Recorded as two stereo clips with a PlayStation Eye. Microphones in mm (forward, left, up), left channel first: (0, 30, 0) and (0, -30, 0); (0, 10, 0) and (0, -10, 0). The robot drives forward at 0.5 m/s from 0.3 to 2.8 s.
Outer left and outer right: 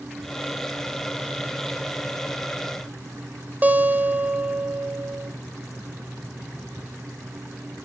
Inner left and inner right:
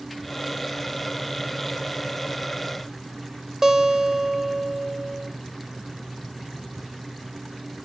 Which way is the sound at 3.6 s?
30° right (ahead or behind).